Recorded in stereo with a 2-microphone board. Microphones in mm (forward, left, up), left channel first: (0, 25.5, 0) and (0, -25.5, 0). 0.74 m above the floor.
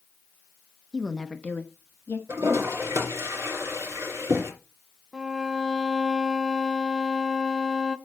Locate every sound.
0.9 s a woman speaking: 10° right (ahead or behind), 0.8 m; by 2.2 s 60° left (ahead or behind), 1.3 m
2.3 s a toilet flushing: 75° right (ahead or behind), 3 m
5.1 s a violin: centre (ahead or behind), 0.7 m